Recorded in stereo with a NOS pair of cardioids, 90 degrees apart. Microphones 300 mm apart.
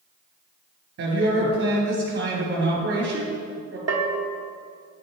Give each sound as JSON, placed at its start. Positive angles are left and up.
{"t": 1.0, "sound": "a woman speaking", "azimuth_deg": -50, "distance_m": 2.5}
{"t": 3.9, "sound": "a bell", "azimuth_deg": -55, "distance_m": 1.1}